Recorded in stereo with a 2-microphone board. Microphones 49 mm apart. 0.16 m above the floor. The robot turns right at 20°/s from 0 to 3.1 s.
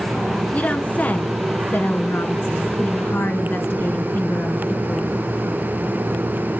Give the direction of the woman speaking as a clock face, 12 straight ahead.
11 o'clock.